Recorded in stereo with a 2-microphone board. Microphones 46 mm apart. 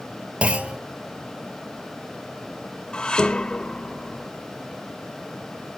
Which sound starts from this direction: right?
A clunk, at 0.4 s.